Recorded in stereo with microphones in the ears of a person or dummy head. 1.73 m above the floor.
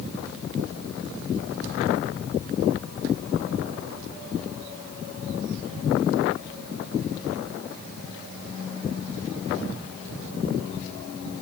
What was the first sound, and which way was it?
Only background noise.